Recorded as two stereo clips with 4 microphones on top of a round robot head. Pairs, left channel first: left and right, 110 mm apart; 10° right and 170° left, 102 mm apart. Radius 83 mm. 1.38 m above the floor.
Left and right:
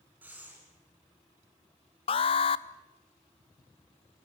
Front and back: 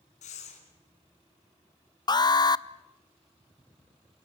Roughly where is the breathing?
Ahead.